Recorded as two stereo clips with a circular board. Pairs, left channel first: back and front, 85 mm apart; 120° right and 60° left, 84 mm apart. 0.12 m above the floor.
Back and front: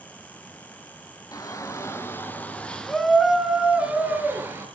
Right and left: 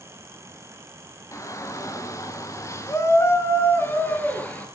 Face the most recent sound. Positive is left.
turn(degrees=-55)